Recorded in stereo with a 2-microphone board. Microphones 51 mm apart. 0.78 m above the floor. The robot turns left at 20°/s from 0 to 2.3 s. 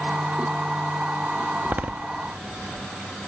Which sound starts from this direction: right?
A door slam, at 1.6 s.